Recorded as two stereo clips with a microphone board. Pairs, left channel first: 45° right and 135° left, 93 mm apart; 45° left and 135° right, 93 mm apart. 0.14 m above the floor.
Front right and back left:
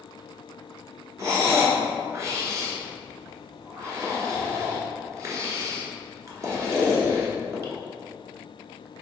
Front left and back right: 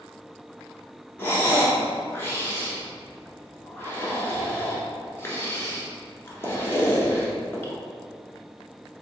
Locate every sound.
1.2 s breathing: 100° left, 1.1 m